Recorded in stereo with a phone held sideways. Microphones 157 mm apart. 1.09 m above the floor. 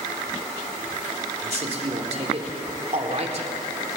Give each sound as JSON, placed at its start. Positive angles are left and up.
{"t": 1.4, "sound": "a man speaking", "side_deg": -45, "distance_m": 3.0}